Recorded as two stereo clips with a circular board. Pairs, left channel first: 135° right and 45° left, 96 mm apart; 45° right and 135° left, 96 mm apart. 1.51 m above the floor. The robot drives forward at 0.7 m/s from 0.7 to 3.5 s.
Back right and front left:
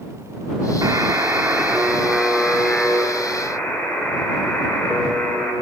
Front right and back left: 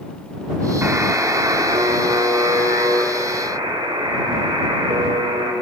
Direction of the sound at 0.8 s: 80° left.